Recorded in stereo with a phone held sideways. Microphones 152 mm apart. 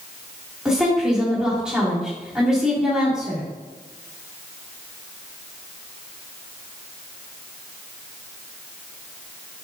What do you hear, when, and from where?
0.7 s a woman speaking: 5° right (ahead or behind), 3 m